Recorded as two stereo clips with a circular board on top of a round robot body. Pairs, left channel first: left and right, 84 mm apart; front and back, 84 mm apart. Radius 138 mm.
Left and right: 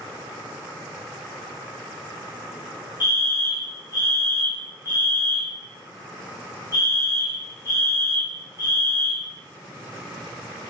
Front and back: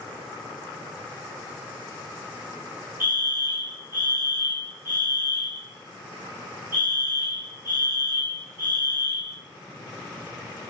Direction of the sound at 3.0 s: 115° left.